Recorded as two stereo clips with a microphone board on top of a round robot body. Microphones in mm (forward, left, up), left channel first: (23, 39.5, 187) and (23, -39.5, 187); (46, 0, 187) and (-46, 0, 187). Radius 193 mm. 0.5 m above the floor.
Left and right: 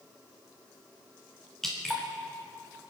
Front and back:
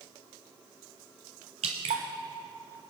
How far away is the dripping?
About 0.7 m.